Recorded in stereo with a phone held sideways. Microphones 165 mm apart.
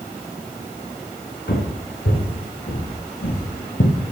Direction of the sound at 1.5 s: 75° left (ahead or behind).